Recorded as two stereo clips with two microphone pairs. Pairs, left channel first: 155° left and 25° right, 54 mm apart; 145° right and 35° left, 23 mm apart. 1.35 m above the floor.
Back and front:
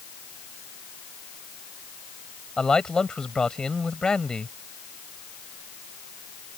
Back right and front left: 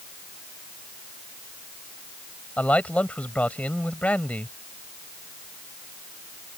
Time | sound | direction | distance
2.6 | a man speaking | 125° right | ?